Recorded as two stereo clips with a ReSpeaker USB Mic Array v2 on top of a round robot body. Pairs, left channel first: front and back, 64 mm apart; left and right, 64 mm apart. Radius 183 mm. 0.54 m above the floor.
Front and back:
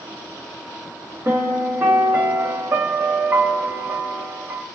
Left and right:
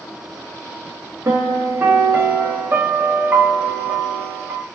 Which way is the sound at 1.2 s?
135° right.